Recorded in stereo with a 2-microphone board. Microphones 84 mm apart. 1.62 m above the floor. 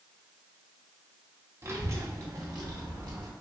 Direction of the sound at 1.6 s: 30° right (ahead or behind).